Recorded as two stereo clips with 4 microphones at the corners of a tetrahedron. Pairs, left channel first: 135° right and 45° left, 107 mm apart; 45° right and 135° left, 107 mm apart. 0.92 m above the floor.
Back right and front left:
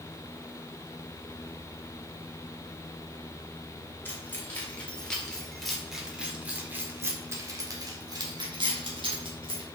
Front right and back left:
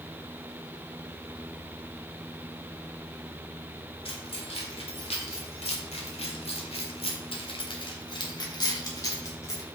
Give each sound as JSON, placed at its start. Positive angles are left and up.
{"t": 4.0, "sound": "keys jangling", "azimuth_deg": -65, "distance_m": 2.5}